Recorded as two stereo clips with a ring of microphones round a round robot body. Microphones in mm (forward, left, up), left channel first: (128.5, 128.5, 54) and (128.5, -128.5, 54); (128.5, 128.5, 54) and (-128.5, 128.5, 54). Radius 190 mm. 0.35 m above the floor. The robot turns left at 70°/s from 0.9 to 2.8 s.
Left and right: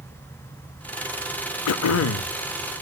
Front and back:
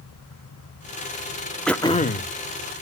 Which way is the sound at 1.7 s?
90° left.